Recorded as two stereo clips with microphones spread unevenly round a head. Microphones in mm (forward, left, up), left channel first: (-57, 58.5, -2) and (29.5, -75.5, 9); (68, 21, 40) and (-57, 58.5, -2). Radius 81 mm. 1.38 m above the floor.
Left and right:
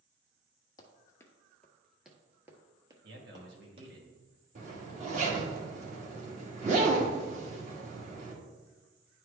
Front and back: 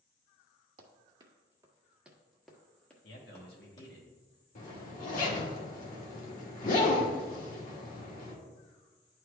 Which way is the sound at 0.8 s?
140° left.